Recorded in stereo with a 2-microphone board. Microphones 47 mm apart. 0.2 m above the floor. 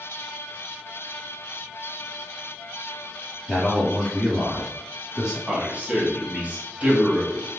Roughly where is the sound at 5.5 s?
Right.